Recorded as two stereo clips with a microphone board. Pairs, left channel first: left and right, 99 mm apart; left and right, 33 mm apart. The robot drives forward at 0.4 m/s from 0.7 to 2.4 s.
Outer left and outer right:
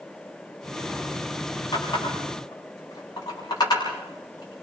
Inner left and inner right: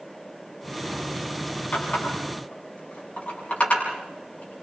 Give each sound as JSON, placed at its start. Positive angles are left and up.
{"t": 1.7, "sound": "a running tap", "side_deg": 45, "distance_m": 7.0}